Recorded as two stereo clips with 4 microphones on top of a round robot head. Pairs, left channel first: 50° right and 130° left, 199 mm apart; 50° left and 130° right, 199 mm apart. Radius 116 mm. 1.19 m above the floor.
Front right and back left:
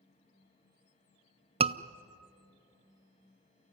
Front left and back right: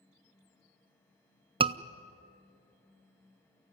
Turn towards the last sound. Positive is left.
turn(degrees=180)